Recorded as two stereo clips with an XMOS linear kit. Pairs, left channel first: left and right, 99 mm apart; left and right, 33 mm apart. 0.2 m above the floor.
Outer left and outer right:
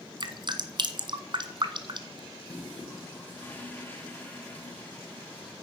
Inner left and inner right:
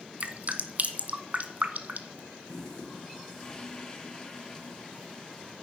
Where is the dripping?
50° right (ahead or behind), 1.2 m.